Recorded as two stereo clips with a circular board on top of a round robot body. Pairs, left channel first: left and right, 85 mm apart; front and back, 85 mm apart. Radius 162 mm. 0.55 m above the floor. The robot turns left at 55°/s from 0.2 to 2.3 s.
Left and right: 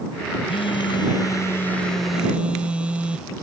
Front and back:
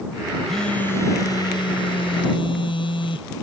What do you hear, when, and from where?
0.5 s a phone buzzing: 90° left; by 3.3 s 15° right